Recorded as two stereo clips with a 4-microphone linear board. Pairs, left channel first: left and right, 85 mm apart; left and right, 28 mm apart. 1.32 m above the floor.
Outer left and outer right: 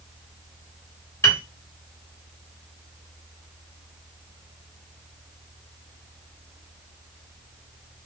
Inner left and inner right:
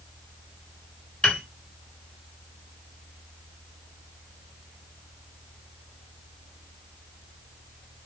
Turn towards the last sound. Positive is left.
turn(degrees=30)  # may be behind; listen again after turning